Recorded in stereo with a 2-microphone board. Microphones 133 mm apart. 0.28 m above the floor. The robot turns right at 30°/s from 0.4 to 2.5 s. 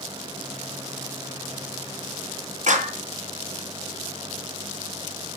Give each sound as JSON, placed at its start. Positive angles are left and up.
{"t": 2.7, "sound": "a clap", "side_deg": -60, "distance_m": 2.0}